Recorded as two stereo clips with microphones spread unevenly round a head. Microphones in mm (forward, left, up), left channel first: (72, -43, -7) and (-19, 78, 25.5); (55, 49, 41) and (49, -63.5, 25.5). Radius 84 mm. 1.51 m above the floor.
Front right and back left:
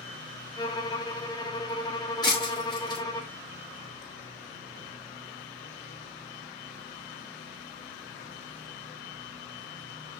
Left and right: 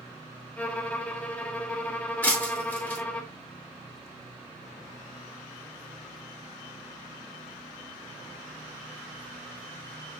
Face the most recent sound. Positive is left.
turn(degrees=15)